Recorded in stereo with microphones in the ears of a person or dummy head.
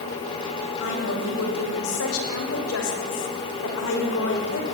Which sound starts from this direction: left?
A woman speaking, at 0.8 s.